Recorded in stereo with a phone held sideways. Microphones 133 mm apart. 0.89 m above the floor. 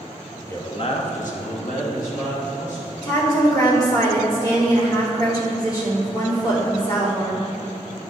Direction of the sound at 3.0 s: 25° left (ahead or behind).